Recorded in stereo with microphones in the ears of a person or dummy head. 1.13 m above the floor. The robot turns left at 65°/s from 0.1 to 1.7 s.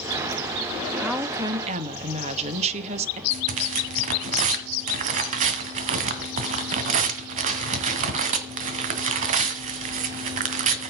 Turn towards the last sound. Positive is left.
turn(degrees=-45)  # may be behind; listen again after turning